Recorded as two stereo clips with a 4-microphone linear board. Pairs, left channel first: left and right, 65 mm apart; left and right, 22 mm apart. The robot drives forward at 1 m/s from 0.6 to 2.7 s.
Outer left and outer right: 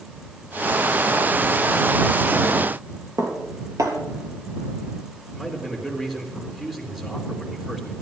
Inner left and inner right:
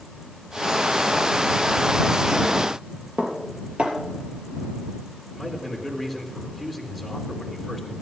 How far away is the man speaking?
About 4 m.